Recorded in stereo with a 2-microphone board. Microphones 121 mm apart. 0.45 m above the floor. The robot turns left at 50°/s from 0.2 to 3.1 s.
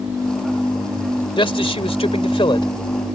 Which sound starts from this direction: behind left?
A man speaking, at 1.4 s.